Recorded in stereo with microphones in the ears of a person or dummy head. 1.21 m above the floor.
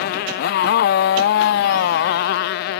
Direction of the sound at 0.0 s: 55° left (ahead or behind).